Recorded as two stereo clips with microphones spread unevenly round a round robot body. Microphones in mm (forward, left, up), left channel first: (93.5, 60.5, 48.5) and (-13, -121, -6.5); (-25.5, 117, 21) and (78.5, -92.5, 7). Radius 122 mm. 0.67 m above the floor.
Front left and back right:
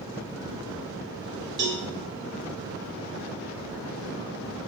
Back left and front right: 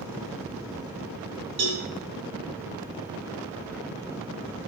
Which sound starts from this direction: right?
A cowbell, at 1.6 s.